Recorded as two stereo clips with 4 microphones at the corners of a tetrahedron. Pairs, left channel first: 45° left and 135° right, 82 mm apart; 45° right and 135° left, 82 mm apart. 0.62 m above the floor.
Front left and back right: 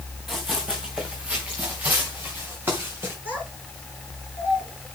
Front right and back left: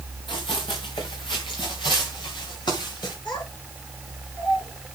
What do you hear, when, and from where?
0.3 s running footsteps: 45° right, 3.5 m; by 3.1 s 75° right, 6 m
3.2 s a child speaking: 65° right, 7.5 m